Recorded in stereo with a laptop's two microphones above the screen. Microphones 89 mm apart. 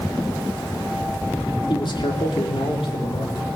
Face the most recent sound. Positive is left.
turn(degrees=75)  # may be behind; listen again after turning